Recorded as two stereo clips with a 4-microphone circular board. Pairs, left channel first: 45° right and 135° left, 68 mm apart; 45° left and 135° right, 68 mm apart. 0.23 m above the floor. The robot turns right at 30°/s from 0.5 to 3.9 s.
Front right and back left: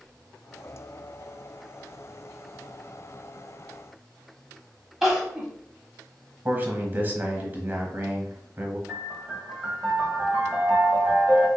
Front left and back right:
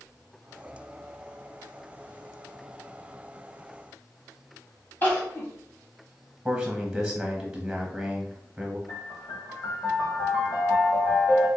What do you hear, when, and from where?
5.0 s crying: 55° left, 1.1 m
6.5 s a man speaking: 150° left, 1.0 m
8.9 s a piano: 60° left, 1.4 m